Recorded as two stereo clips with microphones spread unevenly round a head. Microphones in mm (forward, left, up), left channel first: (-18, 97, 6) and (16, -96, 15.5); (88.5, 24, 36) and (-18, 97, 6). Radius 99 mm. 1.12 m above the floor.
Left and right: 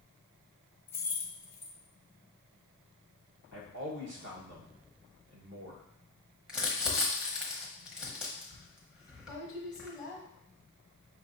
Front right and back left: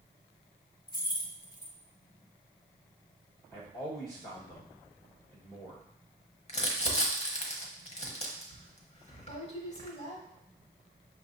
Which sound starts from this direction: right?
A man speaking, at 3.5 s.